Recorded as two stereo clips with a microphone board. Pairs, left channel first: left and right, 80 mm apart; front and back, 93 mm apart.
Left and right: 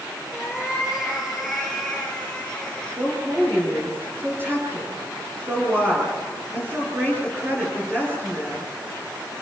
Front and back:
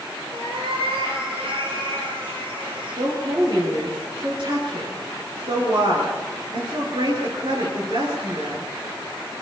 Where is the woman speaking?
155° right, 9.5 m.